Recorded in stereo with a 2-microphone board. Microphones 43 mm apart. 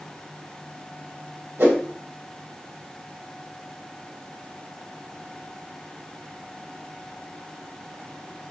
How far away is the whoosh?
About 1.0 m.